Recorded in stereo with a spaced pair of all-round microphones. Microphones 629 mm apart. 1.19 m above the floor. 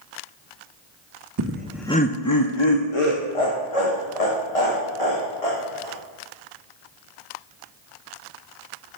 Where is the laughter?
30° right (ahead or behind), 0.5 m; by 6.0 s 65° left (ahead or behind), 3 m.